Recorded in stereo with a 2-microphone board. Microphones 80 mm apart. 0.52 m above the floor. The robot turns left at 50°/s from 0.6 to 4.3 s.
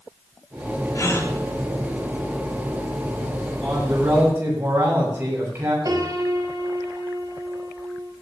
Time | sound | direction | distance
0.9 | a gasp | 45° left (ahead or behind) | 3.5 m
3.6 | a man speaking | 5° left | 9 m
5.8 | a piano | 55° right (ahead or behind) | 3.5 m